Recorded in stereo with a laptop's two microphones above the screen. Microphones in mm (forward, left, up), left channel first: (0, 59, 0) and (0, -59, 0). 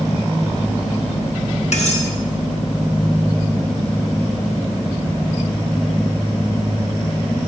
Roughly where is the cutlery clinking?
Left.